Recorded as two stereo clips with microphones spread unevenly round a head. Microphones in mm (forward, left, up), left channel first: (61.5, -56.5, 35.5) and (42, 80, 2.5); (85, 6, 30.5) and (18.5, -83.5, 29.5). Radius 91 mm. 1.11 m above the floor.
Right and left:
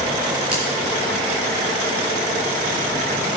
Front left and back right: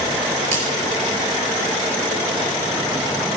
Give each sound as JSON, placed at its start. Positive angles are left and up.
{"t": 0.5, "sound": "a finger snap", "azimuth_deg": 180, "distance_m": 4.0}